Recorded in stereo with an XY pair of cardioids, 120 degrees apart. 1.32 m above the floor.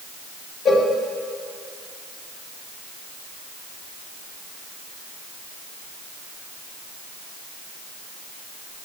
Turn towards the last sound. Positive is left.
turn(degrees=30)